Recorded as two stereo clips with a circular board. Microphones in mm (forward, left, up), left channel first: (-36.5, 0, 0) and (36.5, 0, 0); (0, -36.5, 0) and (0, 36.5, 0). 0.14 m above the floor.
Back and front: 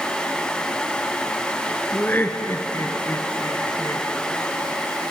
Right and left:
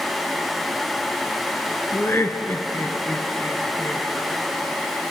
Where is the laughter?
125° right, 1.8 m; by 4.1 s 155° right, 3 m.